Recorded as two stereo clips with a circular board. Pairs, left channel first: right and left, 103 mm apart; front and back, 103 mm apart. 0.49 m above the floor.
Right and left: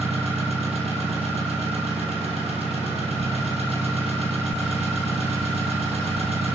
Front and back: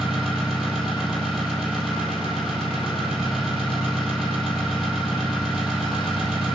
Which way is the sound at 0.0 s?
95° left.